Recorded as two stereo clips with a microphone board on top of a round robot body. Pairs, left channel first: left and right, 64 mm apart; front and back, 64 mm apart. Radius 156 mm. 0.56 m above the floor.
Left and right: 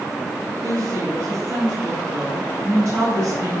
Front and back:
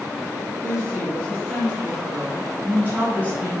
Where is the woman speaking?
100° right, 6 m; by 3.6 s 115° right, 8.5 m.